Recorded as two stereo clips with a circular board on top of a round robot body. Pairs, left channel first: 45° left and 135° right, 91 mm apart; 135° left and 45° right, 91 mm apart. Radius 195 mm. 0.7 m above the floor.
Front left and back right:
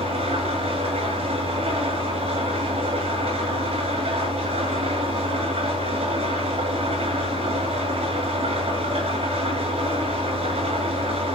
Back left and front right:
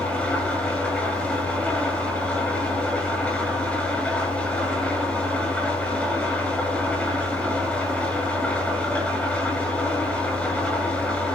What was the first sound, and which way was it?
An engine running, 150° right.